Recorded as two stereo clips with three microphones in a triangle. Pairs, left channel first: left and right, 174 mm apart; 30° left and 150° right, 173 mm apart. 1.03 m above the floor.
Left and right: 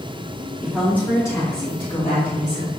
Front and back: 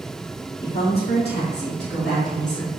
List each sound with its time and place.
0.6 s a woman speaking: straight ahead, 1.7 m; by 2.7 s 45° left, 3 m